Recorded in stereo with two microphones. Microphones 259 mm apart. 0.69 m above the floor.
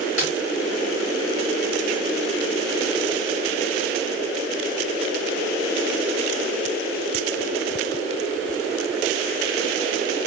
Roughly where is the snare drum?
Left.